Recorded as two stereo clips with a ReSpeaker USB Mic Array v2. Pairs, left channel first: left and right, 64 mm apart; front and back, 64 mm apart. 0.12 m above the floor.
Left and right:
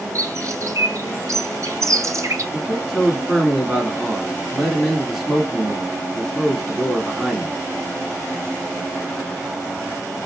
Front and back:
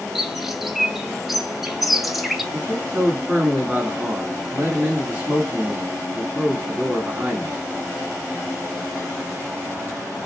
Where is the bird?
90° right, 0.9 m.